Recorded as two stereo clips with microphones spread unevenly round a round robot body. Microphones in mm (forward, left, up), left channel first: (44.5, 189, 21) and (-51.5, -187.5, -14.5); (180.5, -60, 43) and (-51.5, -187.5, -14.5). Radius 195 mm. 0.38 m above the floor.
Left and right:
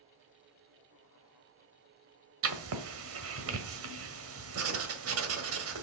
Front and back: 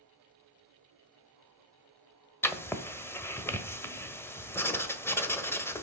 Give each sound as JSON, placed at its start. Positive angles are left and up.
{"t": 2.4, "sound": "writing", "azimuth_deg": -60, "distance_m": 1.6}